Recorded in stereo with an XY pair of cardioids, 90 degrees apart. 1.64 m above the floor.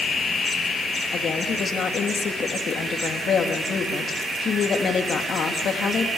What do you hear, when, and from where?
1.1 s a woman speaking: 60° left, 3 m